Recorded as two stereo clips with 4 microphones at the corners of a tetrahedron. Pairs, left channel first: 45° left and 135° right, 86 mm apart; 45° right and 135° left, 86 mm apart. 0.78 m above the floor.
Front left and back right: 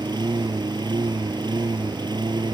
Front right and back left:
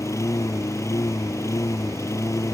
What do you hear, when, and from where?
0.0 s a lawn mower: 100° right